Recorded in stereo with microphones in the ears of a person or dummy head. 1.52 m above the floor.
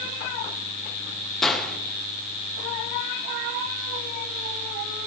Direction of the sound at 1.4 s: 5° left (ahead or behind).